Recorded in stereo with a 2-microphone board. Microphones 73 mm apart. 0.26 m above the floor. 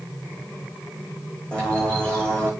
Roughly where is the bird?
Centre.